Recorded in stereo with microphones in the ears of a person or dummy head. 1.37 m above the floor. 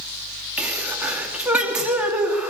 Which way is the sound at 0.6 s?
Centre (ahead or behind).